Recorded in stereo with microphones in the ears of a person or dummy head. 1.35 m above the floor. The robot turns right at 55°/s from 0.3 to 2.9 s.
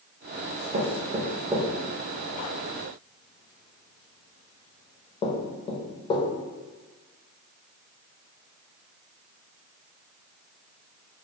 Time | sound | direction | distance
0.7 | knocking | 50° right (ahead or behind) | 0.6 m